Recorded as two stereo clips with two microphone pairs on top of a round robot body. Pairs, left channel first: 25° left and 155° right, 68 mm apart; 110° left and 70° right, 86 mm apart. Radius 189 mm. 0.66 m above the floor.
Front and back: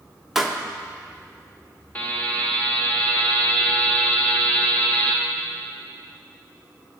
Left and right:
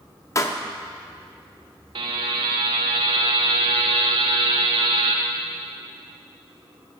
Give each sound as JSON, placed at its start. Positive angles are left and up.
{"t": 0.3, "sound": "a pop", "azimuth_deg": 125, "distance_m": 1.0}
{"t": 1.9, "sound": "a buzzer", "azimuth_deg": -45, "distance_m": 0.6}